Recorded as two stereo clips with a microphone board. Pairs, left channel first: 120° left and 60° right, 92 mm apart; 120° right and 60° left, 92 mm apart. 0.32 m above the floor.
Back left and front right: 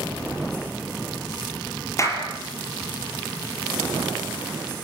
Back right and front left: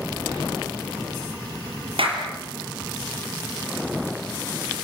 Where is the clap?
65° left, 5.5 m.